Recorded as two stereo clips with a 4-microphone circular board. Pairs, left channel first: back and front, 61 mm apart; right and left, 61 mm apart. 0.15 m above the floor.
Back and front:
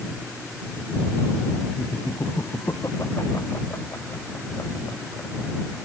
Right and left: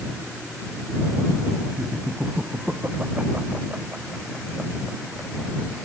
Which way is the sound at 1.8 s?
150° left.